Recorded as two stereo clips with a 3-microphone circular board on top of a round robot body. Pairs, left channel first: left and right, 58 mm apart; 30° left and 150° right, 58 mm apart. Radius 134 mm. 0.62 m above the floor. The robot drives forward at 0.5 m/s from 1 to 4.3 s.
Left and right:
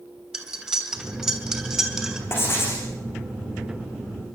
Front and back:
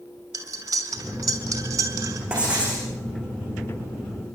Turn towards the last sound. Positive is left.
turn(degrees=140)